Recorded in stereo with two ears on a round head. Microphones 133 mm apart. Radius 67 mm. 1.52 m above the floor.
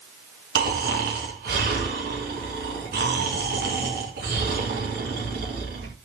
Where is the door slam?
No door slam in this recording.